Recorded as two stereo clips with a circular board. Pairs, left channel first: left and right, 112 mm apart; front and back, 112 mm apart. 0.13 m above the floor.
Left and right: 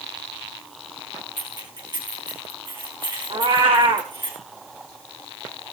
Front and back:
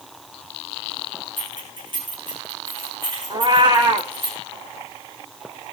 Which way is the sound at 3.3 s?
130° right.